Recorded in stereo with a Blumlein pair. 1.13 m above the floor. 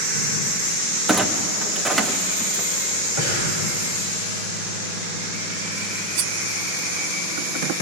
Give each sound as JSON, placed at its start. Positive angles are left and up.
{"t": 1.1, "sound": "a clunk", "azimuth_deg": -5, "distance_m": 1.2}
{"t": 3.2, "sound": "breathing", "azimuth_deg": -55, "distance_m": 6.5}
{"t": 6.2, "sound": "cutlery clinking", "azimuth_deg": -45, "distance_m": 1.0}